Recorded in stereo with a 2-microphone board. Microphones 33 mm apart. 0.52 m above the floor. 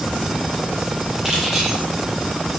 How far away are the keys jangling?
About 8 m.